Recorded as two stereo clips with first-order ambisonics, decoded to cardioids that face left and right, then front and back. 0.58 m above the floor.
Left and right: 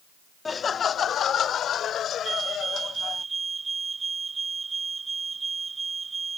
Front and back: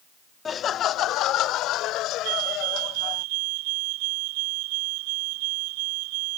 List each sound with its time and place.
0.5 s laughter: 35° left
2.2 s a fire alarm: 165° right